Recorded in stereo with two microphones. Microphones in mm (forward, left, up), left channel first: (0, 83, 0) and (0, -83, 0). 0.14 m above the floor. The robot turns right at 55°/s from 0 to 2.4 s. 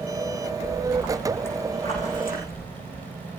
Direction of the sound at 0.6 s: 30° right.